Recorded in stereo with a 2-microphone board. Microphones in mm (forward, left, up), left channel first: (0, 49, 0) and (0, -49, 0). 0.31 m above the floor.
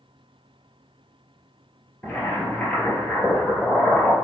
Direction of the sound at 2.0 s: 15° left (ahead or behind).